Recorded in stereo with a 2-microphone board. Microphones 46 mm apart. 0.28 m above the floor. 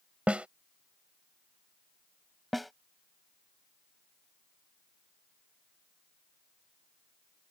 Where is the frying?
No frying in this recording.